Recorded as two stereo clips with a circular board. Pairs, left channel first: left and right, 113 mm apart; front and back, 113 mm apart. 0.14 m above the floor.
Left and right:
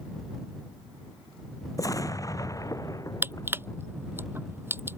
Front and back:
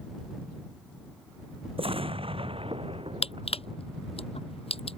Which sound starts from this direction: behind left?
An explosion, at 1.8 s.